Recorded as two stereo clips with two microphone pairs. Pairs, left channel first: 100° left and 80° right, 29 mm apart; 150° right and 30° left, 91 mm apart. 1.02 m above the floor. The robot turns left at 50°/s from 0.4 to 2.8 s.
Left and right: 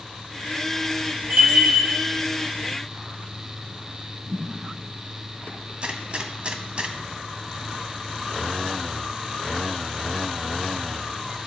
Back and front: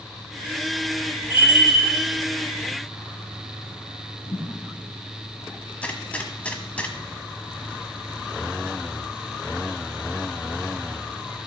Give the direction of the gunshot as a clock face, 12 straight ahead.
3 o'clock.